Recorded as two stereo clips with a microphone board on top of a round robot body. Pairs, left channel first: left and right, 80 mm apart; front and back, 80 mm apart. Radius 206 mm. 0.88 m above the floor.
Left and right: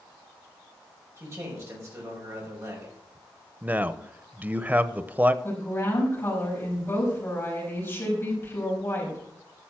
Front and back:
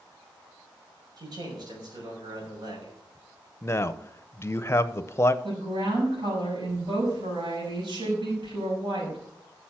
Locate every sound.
1.2 s a man speaking: 145° right, 5.5 m
3.6 s a man speaking: 35° right, 1.0 m
5.4 s a woman speaking: 155° left, 6 m